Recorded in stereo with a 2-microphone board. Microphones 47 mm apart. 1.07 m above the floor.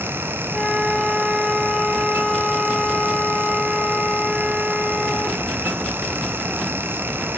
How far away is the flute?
About 2.5 m.